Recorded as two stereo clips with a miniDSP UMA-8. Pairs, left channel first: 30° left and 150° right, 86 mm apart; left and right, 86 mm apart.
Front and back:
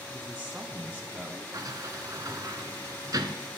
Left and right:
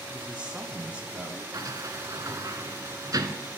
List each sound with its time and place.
0.1 s a man speaking: 140° right, 1.4 m
1.5 s a sliding door: 120° right, 0.9 m